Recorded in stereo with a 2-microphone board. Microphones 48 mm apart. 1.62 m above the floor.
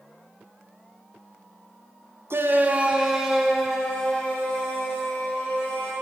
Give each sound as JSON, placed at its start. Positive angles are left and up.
{"t": 2.3, "sound": "a shout", "side_deg": -60, "distance_m": 0.6}